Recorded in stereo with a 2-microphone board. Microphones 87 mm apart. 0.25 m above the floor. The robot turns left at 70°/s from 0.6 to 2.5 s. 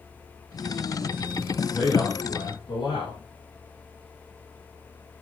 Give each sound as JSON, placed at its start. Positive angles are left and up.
{"t": 1.7, "sound": "a man speaking", "azimuth_deg": -175, "distance_m": 8.5}